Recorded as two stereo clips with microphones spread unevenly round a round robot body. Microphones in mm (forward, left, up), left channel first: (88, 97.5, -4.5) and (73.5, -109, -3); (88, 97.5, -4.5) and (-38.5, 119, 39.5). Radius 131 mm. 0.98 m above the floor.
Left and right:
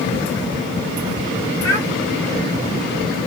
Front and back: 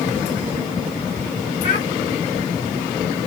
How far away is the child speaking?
About 4.5 m.